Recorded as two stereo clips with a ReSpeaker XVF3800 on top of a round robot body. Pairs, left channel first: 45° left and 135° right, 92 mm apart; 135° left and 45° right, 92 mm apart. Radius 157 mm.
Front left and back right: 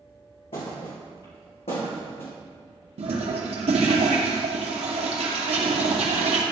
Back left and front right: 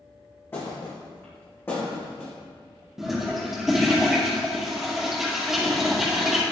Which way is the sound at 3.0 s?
130° right.